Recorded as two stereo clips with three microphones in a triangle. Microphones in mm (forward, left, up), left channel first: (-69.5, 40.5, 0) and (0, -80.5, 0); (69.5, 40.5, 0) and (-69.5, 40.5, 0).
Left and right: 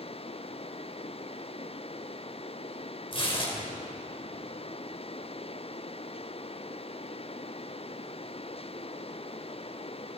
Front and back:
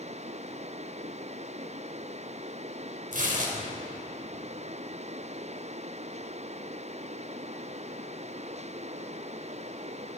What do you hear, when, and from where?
3.1 s tearing paper: 170° left, 5 m